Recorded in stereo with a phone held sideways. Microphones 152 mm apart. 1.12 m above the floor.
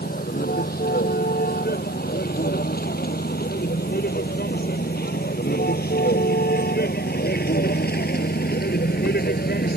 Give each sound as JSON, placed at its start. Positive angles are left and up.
{"t": 0.0, "sound": "a vehicle", "side_deg": 75}